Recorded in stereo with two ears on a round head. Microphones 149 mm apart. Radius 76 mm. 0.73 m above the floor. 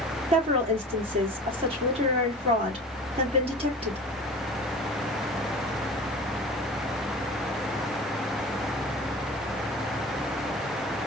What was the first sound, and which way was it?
A woman speaking, 35° right (ahead or behind).